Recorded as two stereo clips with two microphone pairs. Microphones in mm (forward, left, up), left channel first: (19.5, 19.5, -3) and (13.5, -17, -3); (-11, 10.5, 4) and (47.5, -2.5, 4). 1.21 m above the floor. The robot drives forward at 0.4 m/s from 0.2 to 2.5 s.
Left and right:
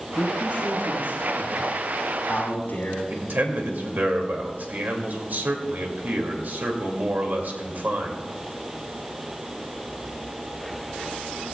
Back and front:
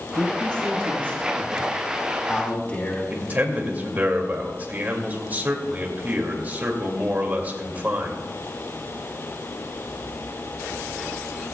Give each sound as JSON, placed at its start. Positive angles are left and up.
{"t": 0.1, "sound": "a man speaking", "azimuth_deg": 100, "distance_m": 5.5}
{"t": 3.1, "sound": "a man speaking", "azimuth_deg": -70, "distance_m": 2.5}